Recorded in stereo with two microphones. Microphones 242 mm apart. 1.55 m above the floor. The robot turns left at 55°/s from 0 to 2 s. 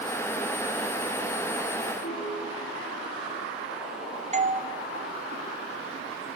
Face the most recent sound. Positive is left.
turn(degrees=-30)  # may be behind; listen again after turning